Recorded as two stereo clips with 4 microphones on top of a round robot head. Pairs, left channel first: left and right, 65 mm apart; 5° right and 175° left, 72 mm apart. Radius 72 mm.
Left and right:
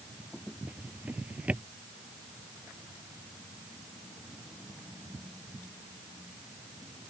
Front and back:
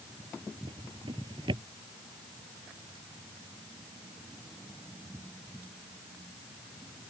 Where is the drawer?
160° right.